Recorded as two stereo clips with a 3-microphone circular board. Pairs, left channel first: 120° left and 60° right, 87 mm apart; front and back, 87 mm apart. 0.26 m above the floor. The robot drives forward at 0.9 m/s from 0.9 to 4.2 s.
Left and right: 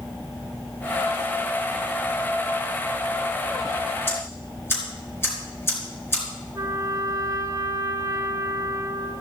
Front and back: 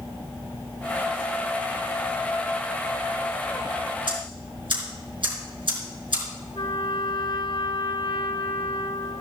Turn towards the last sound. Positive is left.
turn(degrees=-15)